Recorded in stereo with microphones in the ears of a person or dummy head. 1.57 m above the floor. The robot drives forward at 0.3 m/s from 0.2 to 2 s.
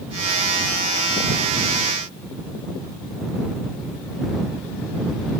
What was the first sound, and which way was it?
Only background noise.